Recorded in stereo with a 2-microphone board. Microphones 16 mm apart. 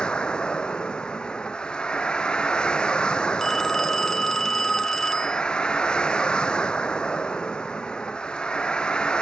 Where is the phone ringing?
25° left (ahead or behind).